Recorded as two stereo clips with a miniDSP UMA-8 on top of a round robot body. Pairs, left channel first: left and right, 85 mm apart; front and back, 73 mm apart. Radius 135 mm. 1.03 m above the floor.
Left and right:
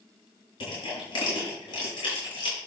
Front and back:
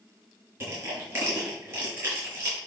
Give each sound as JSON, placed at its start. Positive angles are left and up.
{"t": 0.6, "sound": "crushing", "azimuth_deg": 125, "distance_m": 6.0}